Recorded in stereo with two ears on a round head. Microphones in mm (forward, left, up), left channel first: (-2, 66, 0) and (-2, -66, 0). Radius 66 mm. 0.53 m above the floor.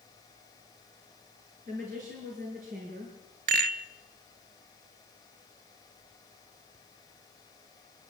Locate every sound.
1.7 s a woman speaking: 60° right (ahead or behind), 6.5 m
3.5 s a rattle: 60° right (ahead or behind), 1.0 m